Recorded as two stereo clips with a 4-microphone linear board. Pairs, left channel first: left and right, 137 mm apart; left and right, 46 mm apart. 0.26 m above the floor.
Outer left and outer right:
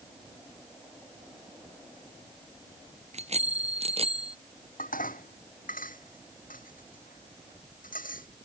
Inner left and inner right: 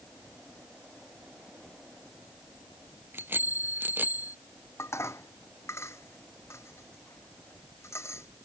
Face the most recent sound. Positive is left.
turn(degrees=85)